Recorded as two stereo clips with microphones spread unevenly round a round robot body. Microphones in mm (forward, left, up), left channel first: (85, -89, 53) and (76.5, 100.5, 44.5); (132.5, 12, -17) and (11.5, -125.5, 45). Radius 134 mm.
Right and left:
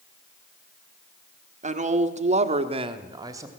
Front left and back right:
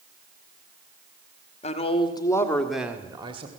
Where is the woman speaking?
60° left, 1.8 m; by 3.5 s 160° left, 1.5 m.